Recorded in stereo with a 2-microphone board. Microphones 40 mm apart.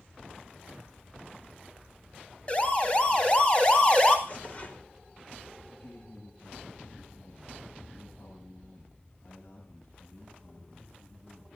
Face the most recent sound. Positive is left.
turn(degrees=75)  # may be behind; listen again after turning